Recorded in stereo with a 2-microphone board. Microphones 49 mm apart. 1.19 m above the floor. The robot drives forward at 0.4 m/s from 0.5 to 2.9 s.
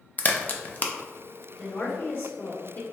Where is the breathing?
No breathing in this recording.